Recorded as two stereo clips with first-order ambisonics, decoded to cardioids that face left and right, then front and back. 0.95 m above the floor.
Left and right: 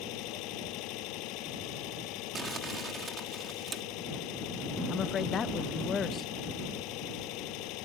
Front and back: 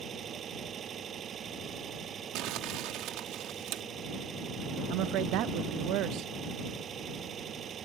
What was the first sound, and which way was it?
An engine running, 120° left.